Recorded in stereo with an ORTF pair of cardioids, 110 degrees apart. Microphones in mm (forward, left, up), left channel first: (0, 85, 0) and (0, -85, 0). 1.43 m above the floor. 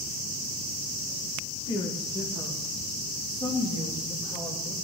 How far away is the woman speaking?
About 1.5 m.